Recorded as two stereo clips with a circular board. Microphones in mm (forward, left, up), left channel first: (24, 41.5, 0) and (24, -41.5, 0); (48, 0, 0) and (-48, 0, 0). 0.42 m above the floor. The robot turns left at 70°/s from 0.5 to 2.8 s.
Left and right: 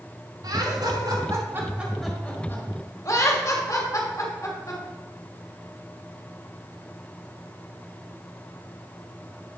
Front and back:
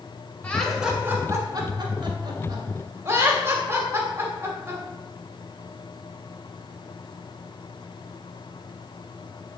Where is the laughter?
75° right, 1.6 m; by 4.8 s 125° left, 1.6 m.